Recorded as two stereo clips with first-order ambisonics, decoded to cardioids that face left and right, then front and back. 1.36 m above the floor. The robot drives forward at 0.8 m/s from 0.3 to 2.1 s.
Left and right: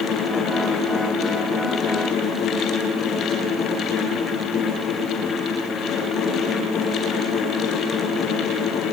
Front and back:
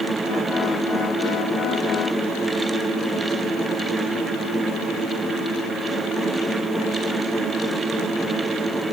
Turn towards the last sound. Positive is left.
No sound to turn to.